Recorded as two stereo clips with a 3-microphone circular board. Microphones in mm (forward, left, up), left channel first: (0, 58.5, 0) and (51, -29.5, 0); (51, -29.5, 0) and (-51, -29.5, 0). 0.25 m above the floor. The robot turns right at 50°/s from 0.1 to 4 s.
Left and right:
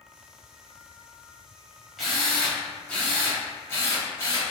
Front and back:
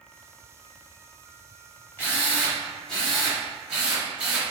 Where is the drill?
25° left, 1.1 m; by 4.4 s 125° left, 1.1 m.